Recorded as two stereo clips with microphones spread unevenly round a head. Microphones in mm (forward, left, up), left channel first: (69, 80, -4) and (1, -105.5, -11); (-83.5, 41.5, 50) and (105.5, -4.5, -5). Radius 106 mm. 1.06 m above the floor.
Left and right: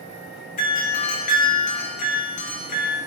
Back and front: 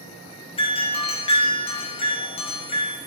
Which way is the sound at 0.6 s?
95° left.